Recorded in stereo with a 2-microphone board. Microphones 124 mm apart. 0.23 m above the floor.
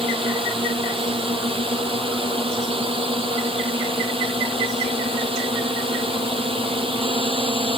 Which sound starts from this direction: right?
A drone, at 0.0 s.